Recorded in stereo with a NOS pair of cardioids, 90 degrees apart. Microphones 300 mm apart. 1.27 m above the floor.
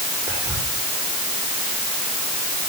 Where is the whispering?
10° right, 4.5 m.